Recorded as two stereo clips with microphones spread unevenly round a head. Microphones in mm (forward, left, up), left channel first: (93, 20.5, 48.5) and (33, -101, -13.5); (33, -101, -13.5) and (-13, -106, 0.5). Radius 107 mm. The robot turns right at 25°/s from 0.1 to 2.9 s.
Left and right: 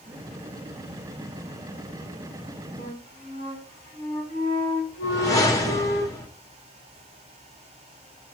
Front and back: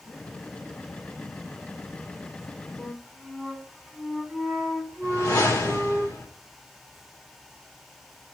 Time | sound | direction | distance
2.8 | a flute | 85° left | 4 m
5.0 | a whoosh | 10° left | 1.8 m